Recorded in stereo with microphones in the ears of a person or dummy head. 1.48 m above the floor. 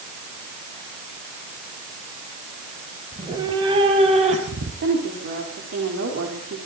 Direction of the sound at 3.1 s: 15° right (ahead or behind).